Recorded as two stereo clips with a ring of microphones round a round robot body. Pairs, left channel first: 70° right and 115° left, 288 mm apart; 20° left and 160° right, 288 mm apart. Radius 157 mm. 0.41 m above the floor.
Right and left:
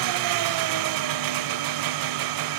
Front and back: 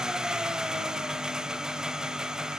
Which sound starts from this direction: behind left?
An engine running, at 0.0 s.